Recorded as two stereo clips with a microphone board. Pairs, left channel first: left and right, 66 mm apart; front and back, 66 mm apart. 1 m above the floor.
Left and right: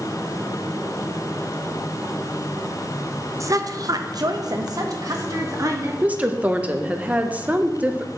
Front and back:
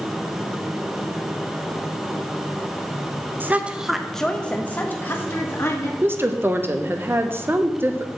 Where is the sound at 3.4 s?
125° right, 0.7 m; by 5.9 s 50° right, 1.6 m.